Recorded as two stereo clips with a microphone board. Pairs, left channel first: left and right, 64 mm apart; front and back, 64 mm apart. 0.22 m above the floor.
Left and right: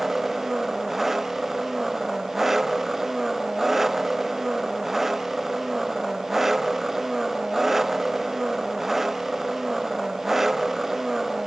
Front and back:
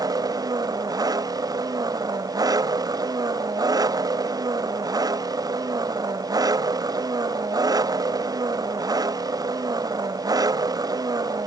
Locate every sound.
0.0 s an engine running: 175° right